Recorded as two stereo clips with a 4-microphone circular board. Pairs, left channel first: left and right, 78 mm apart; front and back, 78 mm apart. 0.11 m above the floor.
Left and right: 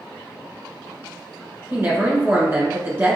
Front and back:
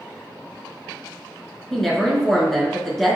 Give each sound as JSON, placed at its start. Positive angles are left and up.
{"t": 1.7, "sound": "a woman speaking", "azimuth_deg": -80, "distance_m": 1.2}